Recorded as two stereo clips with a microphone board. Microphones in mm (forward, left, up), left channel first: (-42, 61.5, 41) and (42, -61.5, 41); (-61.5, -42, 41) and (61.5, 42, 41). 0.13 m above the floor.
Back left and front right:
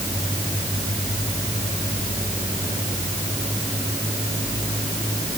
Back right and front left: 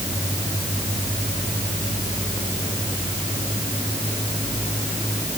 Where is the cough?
I don't hear a cough.